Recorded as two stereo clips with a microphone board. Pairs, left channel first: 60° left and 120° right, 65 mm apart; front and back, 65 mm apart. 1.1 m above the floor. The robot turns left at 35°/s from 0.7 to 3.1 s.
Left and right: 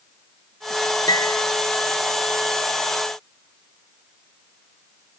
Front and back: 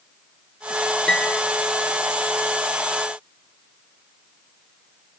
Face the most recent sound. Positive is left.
turn(degrees=5)